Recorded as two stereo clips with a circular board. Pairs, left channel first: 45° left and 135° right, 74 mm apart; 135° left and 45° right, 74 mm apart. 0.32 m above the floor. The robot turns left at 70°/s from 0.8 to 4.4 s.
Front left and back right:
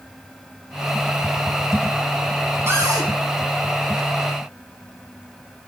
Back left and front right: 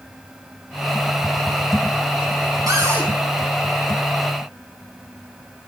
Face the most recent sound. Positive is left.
turn(degrees=155)